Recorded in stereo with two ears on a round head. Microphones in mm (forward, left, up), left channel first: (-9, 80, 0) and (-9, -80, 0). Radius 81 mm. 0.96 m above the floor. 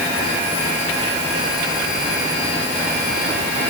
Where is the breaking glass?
No breaking glass in this recording.